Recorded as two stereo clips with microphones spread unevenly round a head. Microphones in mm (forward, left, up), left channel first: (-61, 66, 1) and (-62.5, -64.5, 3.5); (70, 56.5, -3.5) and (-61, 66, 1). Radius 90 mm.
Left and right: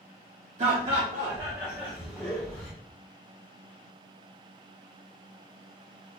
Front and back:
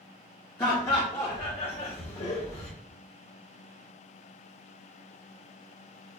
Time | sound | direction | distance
0.6 | laughter | 70° right | 1.1 m